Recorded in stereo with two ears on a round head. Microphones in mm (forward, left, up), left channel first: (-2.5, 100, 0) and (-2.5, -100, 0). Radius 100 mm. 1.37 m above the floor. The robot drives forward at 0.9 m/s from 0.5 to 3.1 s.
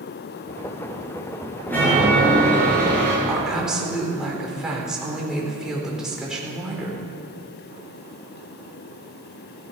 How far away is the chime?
About 7 m.